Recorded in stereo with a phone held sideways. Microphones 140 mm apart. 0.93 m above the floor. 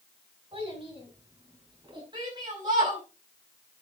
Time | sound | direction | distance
0.5 | a child speaking | 40° right (ahead or behind) | 7.5 m
2.1 | a shout | 35° right (ahead or behind) | 5.5 m